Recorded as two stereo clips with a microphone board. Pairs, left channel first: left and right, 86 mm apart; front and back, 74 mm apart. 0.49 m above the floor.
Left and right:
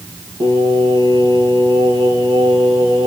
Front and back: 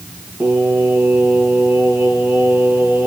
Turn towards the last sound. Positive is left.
turn(degrees=-105)